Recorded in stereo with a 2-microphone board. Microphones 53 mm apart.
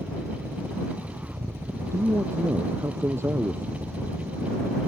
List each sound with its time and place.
0.0 s a helicopter: 50° right (ahead or behind)
1.9 s a man speaking: 55° right (ahead or behind)